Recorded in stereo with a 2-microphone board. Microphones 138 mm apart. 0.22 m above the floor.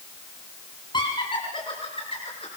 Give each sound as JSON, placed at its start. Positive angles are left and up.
{"t": 0.9, "sound": "laughter", "side_deg": 35, "distance_m": 3.0}